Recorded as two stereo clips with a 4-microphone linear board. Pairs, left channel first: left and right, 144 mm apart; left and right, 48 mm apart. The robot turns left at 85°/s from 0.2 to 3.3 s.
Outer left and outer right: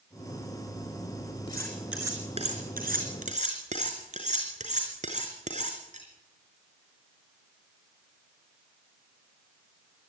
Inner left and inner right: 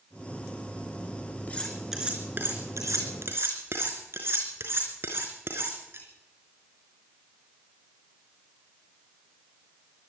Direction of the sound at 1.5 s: 25° left (ahead or behind).